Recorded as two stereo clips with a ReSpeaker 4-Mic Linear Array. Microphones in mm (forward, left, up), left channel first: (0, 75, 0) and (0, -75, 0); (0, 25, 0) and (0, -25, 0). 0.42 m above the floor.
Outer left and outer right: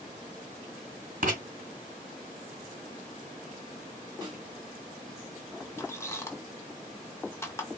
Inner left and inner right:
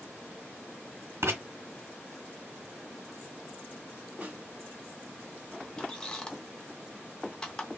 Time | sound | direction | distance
1.2 | writing | 70° right (ahead or behind) | 1.2 m
4.2 | a snare drum | 30° right (ahead or behind) | 1.4 m
5.8 | a squeak | 15° left (ahead or behind) | 0.7 m